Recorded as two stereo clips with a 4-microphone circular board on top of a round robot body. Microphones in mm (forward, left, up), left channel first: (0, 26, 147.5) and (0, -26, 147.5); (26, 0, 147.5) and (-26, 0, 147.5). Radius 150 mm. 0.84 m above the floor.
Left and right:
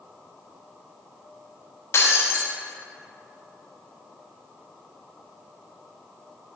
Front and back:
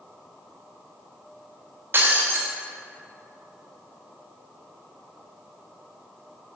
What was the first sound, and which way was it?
Breaking glass, 130° left.